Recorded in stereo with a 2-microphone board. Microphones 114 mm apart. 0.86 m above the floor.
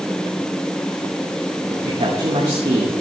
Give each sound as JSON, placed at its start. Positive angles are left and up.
{"t": 1.7, "sound": "a man speaking", "side_deg": -65, "distance_m": 2.5}